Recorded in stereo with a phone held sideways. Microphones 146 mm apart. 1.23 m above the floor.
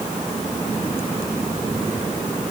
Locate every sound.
Only background noise.